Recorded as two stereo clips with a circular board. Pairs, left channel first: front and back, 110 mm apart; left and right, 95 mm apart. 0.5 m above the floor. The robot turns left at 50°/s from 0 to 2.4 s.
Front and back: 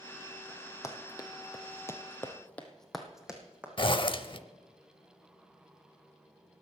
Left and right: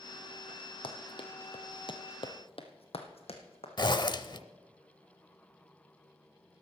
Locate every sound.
0.8 s running footsteps: 65° left, 1.4 m; by 3.7 s 100° left, 2 m
3.8 s a zipper: 45° left, 0.6 m